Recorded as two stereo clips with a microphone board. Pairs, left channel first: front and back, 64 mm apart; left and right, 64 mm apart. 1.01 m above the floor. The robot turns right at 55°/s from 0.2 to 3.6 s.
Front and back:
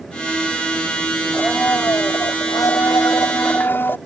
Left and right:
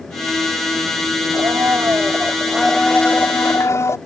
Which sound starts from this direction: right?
A blender, at 1.3 s.